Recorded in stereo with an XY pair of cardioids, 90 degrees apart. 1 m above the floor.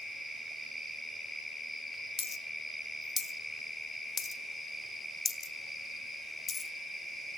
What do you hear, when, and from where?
2.2 s a dropped coin: 45° left, 1.5 m